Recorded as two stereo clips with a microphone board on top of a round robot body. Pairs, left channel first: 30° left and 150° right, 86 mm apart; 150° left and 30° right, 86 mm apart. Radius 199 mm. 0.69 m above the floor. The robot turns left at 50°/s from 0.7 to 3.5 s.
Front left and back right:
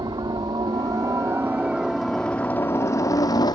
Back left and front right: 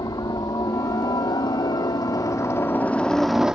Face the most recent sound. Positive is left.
turn(degrees=50)